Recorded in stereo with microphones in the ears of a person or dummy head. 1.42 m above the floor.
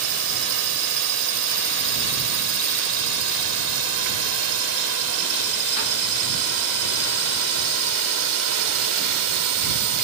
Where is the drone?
80° right; by 10.0 s 75° right (ahead or behind).